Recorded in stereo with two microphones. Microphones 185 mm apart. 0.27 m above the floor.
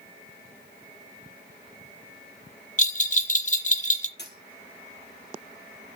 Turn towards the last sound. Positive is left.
turn(degrees=65)  # may be behind; listen again after turning